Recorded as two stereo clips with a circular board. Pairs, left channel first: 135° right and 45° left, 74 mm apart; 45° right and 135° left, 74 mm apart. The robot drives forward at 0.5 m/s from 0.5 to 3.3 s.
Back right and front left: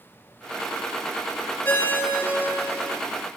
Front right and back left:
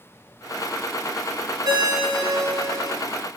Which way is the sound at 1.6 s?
160° left.